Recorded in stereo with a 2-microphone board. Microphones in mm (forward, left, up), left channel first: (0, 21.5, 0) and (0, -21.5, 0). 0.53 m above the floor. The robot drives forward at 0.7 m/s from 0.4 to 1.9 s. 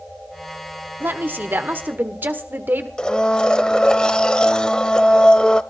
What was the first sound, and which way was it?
A woman speaking, 55° right (ahead or behind).